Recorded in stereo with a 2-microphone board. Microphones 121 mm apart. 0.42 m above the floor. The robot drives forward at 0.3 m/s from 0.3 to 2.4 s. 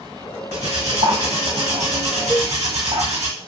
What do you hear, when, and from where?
0.5 s cutlery clinking: 70° right (ahead or behind), 1.2 m; by 3.3 s 65° right (ahead or behind), 1.2 m
2.3 s a cowbell: 15° left (ahead or behind), 1.4 m